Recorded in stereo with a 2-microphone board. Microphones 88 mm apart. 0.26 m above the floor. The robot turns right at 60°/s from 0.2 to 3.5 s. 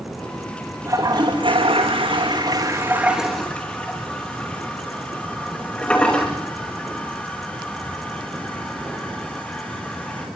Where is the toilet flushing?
35° right (ahead or behind), 7.5 m; by 10.3 s 15° left (ahead or behind), 7.5 m.